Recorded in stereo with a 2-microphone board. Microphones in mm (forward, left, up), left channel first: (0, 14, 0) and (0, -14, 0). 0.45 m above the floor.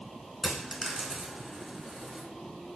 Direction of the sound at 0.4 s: 20° right (ahead or behind).